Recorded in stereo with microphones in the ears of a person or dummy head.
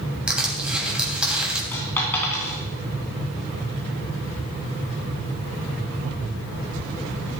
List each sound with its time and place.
0.3 s crushing: 5° right (ahead or behind), 2.5 m
1.7 s a dropped coin: 20° left (ahead or behind), 3.5 m